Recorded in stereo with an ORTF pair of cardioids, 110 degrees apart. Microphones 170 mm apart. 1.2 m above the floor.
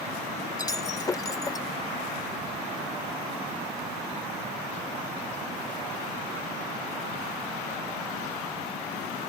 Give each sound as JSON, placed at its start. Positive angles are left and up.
{"t": 0.6, "sound": "breaking glass", "azimuth_deg": 20}